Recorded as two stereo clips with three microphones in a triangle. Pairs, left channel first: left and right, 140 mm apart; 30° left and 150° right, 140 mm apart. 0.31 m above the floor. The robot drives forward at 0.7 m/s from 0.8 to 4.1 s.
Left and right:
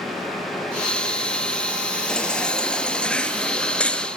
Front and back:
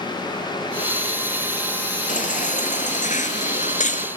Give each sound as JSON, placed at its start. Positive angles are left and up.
{"t": 2.1, "sound": "a baby crying", "azimuth_deg": 5, "distance_m": 4.0}